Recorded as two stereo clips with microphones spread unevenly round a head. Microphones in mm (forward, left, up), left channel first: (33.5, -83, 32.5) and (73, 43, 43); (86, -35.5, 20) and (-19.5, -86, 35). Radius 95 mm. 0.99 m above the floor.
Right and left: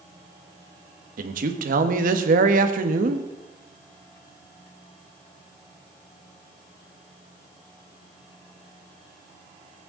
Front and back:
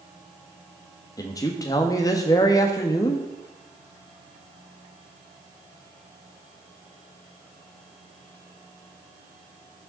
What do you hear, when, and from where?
1.2 s a man speaking: 90° left, 1.3 m